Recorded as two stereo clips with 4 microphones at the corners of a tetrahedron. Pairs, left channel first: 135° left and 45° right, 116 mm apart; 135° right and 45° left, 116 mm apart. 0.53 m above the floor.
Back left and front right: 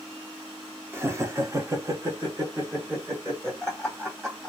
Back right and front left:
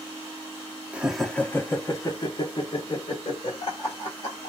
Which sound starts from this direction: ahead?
Laughter, at 0.9 s.